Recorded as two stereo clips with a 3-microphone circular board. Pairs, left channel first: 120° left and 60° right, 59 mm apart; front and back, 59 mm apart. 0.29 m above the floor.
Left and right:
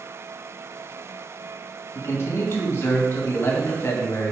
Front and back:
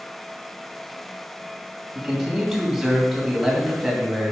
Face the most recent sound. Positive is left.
turn(degrees=100)